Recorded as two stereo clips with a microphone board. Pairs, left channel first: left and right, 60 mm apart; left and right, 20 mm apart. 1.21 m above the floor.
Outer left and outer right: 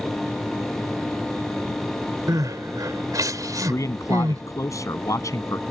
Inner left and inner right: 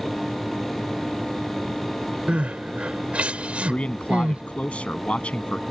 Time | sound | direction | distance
2.3 | crying | 80° right | ?
3.7 | a man speaking | 65° left (ahead or behind) | ?